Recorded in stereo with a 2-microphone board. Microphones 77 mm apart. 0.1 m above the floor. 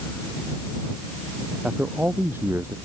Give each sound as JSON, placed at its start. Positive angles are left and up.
{"t": 1.6, "sound": "a man speaking", "side_deg": -15}